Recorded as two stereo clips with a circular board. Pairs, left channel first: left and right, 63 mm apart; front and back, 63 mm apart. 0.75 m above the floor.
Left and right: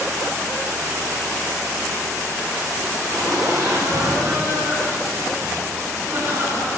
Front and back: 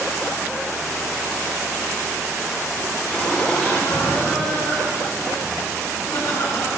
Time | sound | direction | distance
3.1 | laughter | 75° right | 6.5 m